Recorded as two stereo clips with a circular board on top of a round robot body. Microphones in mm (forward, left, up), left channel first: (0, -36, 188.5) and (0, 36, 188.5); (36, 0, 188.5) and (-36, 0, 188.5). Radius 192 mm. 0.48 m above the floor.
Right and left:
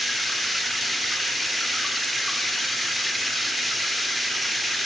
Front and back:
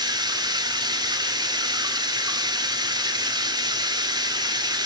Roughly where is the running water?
Behind.